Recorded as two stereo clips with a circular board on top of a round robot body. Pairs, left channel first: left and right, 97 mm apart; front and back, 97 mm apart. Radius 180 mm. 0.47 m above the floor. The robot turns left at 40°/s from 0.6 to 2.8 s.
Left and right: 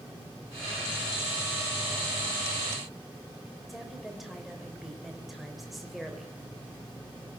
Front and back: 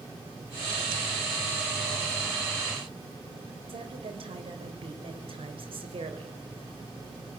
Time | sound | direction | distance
3.7 | a woman speaking | 175° right | 3 m